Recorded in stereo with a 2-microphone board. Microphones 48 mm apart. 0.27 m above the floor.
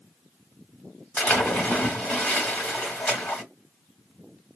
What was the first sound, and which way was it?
A splash, 30° left (ahead or behind).